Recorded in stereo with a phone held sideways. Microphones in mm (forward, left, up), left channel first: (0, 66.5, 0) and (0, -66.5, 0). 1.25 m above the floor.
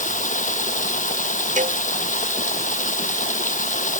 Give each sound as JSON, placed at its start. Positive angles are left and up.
{"t": 0.0, "sound": "running water", "side_deg": 90}
{"t": 1.6, "sound": "a cowbell", "side_deg": -80}